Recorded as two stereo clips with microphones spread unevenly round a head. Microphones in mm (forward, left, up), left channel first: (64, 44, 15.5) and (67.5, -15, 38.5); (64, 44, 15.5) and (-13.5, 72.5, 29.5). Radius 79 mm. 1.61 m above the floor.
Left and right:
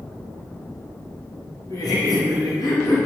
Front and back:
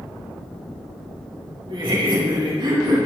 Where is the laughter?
140° left, 3 m; by 3.1 s 125° left, 3 m.